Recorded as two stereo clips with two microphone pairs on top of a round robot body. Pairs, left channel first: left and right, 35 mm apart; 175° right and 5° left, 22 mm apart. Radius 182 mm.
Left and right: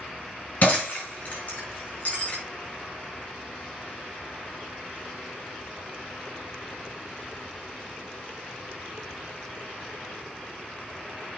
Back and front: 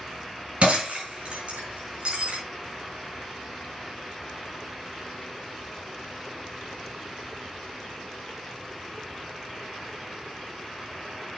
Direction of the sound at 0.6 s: 40° left.